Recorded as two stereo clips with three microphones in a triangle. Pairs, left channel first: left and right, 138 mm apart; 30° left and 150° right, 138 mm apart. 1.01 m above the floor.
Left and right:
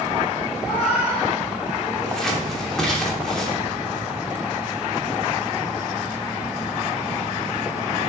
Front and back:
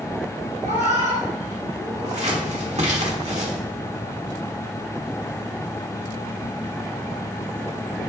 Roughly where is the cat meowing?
Behind.